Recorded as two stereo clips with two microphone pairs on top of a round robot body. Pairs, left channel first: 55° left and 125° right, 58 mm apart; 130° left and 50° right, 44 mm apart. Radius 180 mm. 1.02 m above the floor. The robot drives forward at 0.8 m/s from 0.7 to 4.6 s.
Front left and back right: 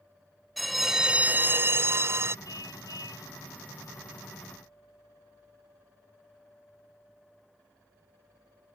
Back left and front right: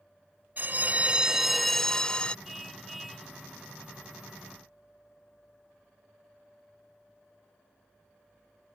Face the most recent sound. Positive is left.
turn(degrees=40)